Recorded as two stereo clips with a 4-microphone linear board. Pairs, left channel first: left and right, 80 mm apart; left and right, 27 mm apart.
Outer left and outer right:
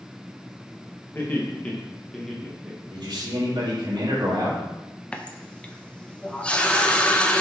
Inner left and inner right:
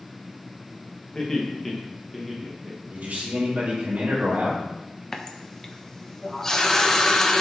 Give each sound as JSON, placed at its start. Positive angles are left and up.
{"t": 1.1, "sound": "laughter", "side_deg": 25, "distance_m": 2.0}
{"t": 2.9, "sound": "a man speaking", "side_deg": -65, "distance_m": 3.0}
{"t": 5.1, "sound": "a running tap", "side_deg": 10, "distance_m": 0.7}